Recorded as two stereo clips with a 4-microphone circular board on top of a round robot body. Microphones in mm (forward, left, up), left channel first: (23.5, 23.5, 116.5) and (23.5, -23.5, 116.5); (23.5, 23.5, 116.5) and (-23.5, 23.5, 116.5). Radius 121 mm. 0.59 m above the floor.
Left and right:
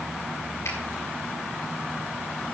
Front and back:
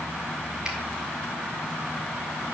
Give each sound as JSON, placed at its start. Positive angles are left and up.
{"t": 0.7, "sound": "a finger snap", "azimuth_deg": 110, "distance_m": 6.0}